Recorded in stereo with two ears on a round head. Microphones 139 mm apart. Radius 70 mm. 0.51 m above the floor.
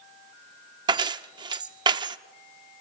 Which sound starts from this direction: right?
Keys jangling, at 0.9 s.